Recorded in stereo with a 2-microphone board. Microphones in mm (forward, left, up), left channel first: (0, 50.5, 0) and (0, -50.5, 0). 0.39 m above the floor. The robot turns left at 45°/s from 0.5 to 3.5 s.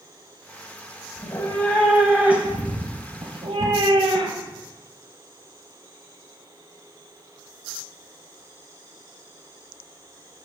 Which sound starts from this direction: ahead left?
A cat meowing, at 1.2 s.